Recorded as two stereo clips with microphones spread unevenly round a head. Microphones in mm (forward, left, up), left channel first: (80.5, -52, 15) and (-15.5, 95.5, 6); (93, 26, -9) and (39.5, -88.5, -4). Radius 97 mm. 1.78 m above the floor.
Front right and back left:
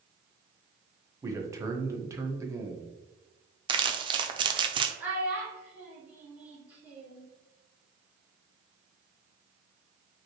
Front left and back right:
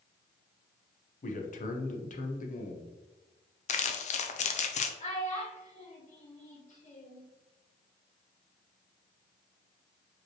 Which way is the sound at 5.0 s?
40° left.